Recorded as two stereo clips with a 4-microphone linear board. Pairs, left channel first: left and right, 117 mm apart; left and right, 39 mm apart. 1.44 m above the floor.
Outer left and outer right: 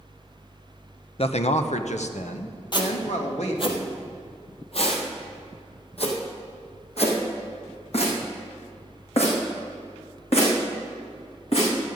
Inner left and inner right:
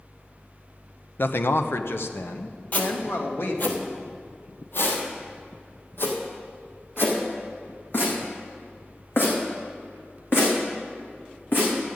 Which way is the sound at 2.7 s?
40° left (ahead or behind).